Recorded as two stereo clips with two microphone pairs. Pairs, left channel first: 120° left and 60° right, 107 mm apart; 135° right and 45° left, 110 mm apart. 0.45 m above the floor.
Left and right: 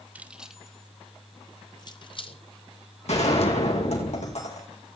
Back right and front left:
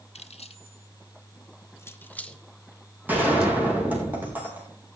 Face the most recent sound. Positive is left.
turn(degrees=120)